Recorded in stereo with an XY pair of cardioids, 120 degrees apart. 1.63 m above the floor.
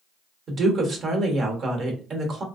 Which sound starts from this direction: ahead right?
A woman speaking, at 0.5 s.